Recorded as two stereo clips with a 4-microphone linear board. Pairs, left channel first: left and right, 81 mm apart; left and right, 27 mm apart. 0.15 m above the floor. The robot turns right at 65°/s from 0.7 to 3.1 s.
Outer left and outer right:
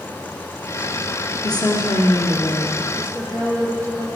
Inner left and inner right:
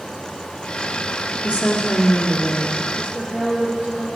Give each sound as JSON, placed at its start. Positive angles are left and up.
{"t": 1.4, "sound": "a woman speaking", "azimuth_deg": 60, "distance_m": 2.5}
{"t": 3.0, "sound": "a woman speaking", "side_deg": -35, "distance_m": 3.5}